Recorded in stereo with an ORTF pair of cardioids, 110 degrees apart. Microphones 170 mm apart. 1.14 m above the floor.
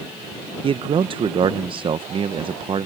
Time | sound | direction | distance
0.6 | a man speaking | 30° right | ?